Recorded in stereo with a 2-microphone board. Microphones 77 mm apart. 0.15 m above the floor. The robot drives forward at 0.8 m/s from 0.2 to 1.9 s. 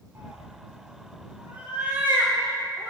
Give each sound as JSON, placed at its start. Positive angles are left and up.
{"t": 0.1, "sound": "a cat meowing", "side_deg": -30, "distance_m": 3.0}